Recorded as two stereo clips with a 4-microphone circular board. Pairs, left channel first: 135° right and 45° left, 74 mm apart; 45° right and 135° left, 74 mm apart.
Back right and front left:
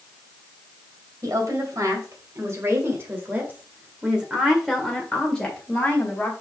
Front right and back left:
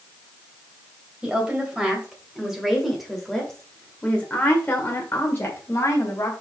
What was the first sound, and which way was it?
A woman speaking, 65° left.